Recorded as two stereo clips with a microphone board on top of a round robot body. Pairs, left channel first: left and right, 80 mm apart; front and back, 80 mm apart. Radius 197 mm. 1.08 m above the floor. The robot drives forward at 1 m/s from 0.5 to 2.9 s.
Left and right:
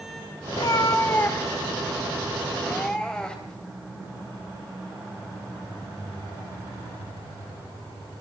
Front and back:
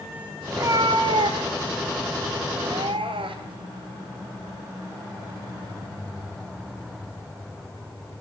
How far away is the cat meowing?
About 0.7 m.